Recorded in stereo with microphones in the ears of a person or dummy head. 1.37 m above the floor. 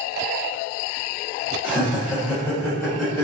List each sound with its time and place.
1.6 s laughter: 10° right (ahead or behind), 1.6 m; by 3.2 s 15° left (ahead or behind), 0.8 m